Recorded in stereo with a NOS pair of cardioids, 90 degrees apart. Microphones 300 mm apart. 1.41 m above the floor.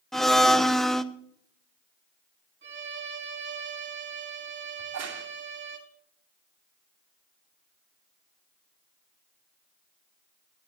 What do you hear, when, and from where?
0.1 s a blender: straight ahead, 0.8 m
2.6 s a violin: 35° right, 3 m
4.8 s a crack: 60° right, 2.5 m